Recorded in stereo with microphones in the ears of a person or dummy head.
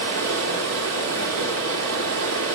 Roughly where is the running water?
Right.